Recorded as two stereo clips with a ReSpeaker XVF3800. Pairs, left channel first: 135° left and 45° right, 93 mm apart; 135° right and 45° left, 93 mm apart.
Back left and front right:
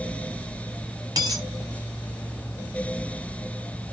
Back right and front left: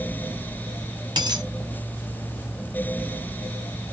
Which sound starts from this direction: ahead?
A dropped coin, at 1.2 s.